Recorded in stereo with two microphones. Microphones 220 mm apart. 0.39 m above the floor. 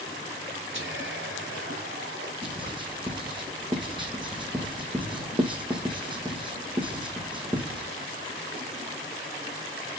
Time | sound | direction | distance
0.7 | whispering | 60° right (ahead or behind) | 3 m
2.4 | writing | 20° right (ahead or behind) | 3 m